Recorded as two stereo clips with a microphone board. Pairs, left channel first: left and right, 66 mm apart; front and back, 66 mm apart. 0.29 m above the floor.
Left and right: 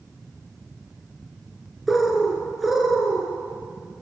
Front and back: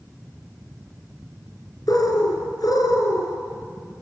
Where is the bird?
5° right, 3.5 m.